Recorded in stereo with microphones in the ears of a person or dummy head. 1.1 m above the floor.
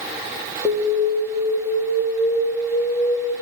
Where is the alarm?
5° left (ahead or behind), 2.5 m.